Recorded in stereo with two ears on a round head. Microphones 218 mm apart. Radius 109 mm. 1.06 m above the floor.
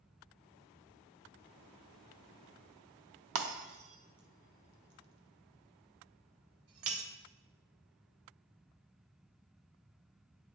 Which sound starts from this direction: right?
Breaking glass, at 3.4 s.